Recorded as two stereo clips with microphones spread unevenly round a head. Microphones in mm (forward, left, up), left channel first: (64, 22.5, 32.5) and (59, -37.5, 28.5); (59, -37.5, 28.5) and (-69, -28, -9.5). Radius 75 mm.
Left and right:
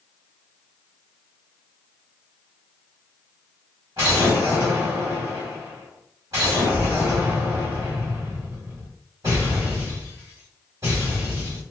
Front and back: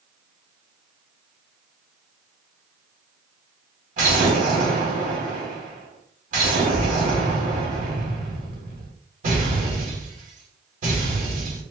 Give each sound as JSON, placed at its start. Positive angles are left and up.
{"t": 4.0, "sound": "an explosion", "azimuth_deg": -155, "distance_m": 1.6}